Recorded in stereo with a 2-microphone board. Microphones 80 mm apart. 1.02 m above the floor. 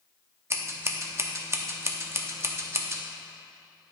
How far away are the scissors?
About 0.7 m.